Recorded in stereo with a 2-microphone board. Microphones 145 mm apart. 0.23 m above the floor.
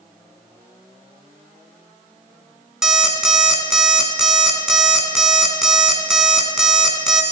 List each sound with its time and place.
2.8 s an alarm clock: 5° right (ahead or behind), 1.4 m